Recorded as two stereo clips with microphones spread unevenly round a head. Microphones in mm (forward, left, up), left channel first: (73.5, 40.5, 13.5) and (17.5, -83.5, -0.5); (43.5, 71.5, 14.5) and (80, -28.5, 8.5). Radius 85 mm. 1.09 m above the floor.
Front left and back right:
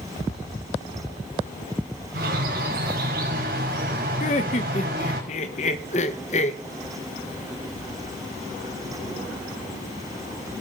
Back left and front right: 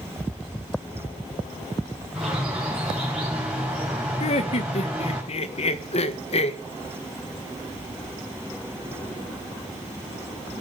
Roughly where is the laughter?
Left.